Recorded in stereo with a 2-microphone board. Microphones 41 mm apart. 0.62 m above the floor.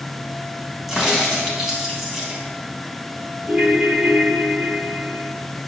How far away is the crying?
No crying in this recording.